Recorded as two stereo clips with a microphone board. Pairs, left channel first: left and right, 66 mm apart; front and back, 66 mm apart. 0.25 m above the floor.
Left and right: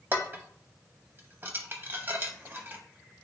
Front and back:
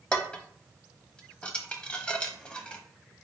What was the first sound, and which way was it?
Dishes clattering, 65° right.